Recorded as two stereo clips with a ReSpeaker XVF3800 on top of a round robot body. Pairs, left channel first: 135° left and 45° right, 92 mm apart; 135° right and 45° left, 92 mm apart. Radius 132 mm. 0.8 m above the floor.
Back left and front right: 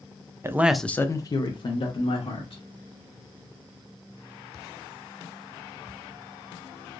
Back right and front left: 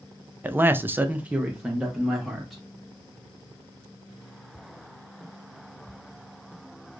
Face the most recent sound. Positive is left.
turn(degrees=130)